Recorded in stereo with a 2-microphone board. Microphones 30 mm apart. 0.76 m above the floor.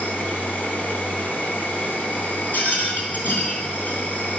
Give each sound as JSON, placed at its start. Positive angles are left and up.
{"t": 0.0, "sound": "an insect", "side_deg": 70, "distance_m": 2.5}
{"t": 2.5, "sound": "a rattle", "side_deg": 80, "distance_m": 2.5}